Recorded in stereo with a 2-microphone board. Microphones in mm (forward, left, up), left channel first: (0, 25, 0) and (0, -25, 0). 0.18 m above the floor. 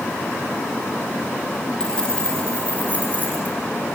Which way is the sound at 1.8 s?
15° left (ahead or behind).